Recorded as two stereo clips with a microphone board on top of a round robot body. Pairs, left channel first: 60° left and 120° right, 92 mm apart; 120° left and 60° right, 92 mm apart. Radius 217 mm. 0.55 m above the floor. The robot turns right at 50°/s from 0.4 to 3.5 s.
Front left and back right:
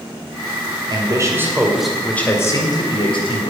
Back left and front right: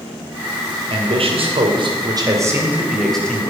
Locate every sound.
0.9 s a man speaking: 80° right, 2.5 m; by 3.5 s 50° left, 2.5 m